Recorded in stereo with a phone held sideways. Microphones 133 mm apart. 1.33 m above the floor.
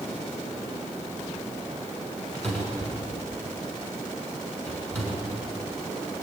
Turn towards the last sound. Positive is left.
turn(degrees=5)  # may be behind; listen again after turning